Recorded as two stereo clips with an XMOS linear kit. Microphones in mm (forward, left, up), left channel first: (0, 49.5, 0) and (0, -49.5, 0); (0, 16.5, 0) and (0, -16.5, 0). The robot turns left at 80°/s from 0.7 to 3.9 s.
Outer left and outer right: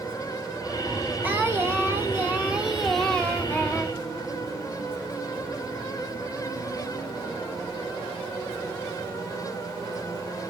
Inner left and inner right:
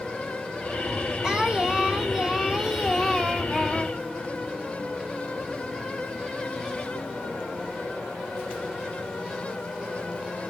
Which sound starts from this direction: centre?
Singing, at 1.2 s.